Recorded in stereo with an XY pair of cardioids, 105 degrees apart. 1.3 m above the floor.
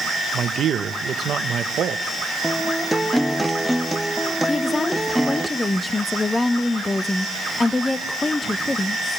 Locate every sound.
0.3 s a man speaking: 55° right, 1.3 m
2.4 s a guitar: straight ahead, 1.2 m
4.5 s a woman speaking: 25° left, 1.0 m